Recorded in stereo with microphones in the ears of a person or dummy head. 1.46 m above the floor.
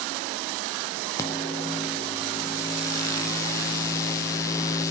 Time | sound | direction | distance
1.2 | a microwave | 20° left (ahead or behind) | 0.6 m